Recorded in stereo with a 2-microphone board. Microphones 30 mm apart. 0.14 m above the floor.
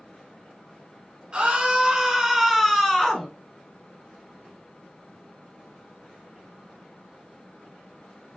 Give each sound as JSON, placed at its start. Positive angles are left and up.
{"t": 1.3, "sound": "a scream", "side_deg": -35, "distance_m": 1.2}